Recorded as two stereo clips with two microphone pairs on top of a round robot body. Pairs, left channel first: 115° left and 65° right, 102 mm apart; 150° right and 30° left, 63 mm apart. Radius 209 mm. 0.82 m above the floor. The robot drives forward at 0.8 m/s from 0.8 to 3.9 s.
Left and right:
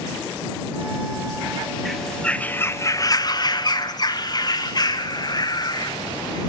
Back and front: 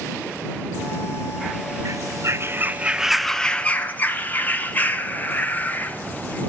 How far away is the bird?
About 1.2 m.